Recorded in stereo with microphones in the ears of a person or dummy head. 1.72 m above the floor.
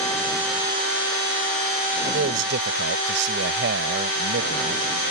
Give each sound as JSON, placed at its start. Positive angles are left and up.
{"t": 2.0, "sound": "a man speaking", "side_deg": -70}